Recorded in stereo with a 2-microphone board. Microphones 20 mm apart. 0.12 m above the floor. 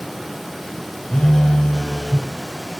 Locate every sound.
1.1 s a phone buzzing: 35° left (ahead or behind), 0.9 m